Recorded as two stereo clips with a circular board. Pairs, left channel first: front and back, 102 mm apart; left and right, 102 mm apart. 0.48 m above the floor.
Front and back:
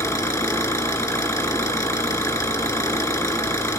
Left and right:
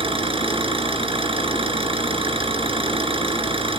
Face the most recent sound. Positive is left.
turn(degrees=-60)